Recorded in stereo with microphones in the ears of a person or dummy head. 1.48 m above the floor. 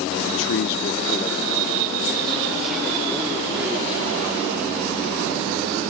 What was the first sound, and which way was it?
A man speaking, 70° left (ahead or behind).